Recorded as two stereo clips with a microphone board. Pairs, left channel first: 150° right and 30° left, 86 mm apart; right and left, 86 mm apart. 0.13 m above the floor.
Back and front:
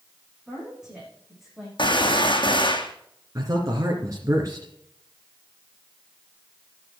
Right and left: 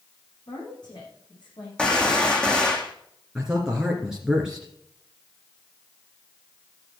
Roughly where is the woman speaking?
Ahead right.